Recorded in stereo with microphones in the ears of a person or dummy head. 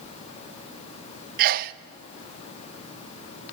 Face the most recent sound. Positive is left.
turn(degrees=-50)  # may be behind; listen again after turning